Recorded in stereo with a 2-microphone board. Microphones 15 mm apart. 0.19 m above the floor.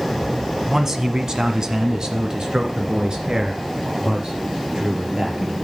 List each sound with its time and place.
0.7 s a man speaking: 30° right (ahead or behind), 1.2 m; by 5.5 s 55° right (ahead or behind), 3.5 m